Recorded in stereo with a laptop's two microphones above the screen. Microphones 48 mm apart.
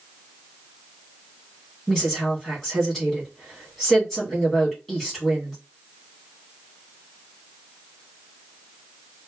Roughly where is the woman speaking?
Centre.